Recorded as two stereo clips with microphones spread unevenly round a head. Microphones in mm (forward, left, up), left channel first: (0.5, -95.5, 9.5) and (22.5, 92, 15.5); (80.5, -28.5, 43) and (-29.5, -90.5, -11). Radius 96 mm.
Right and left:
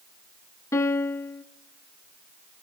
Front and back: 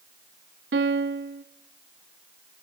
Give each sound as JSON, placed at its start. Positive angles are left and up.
{"t": 0.7, "sound": "a piano", "azimuth_deg": -175, "distance_m": 0.8}